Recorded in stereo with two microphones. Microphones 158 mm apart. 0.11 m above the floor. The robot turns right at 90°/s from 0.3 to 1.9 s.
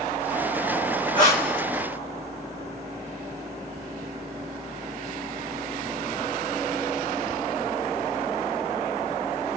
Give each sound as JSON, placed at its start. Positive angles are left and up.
{"t": 1.1, "sound": "breathing", "azimuth_deg": 145, "distance_m": 1.4}